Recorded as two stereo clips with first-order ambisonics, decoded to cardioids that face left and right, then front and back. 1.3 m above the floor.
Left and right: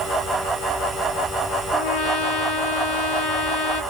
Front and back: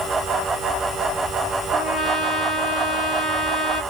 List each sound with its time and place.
1.7 s a trumpet: 75° left, 2.5 m